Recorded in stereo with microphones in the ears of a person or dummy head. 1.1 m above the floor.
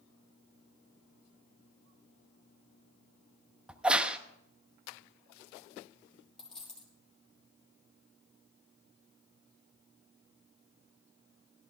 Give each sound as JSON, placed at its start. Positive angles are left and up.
{"t": 3.7, "sound": "a crack", "side_deg": -5, "distance_m": 0.8}
{"t": 6.4, "sound": "a dropped coin", "side_deg": 5, "distance_m": 4.5}